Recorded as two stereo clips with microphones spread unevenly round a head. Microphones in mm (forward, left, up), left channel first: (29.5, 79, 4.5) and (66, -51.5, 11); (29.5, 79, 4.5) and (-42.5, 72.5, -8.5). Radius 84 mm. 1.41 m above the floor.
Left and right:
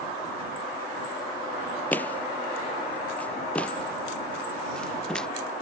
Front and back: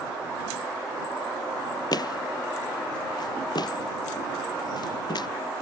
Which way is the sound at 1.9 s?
30° left.